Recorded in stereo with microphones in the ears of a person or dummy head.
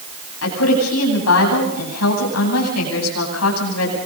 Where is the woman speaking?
85° left, 9.5 m.